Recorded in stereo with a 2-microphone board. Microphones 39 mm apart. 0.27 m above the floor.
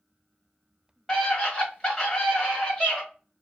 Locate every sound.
1.1 s a scream: 15° left (ahead or behind), 1.5 m